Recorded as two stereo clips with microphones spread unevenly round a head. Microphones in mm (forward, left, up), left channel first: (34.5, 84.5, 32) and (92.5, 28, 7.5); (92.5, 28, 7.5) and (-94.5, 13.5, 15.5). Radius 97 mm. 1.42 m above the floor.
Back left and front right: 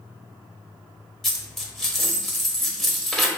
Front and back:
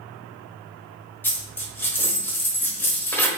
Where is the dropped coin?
80° left, 0.9 m.